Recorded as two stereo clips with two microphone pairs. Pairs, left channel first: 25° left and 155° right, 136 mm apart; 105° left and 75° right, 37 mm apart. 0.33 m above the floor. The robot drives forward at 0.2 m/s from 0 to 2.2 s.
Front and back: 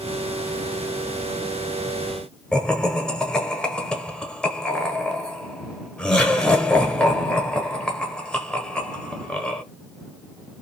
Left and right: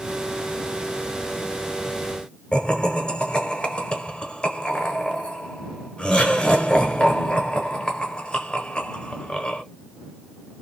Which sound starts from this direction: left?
Laughter, at 2.5 s.